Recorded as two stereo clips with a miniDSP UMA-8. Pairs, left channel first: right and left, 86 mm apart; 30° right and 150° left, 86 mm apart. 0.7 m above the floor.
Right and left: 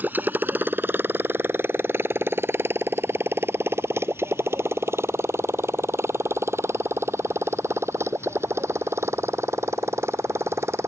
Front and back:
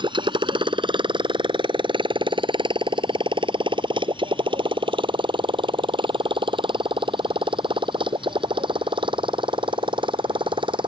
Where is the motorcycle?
160° left; by 10.9 s 145° left.